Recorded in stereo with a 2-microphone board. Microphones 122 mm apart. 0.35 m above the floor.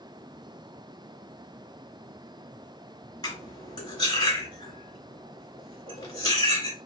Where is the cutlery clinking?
35° left (ahead or behind), 2.0 m.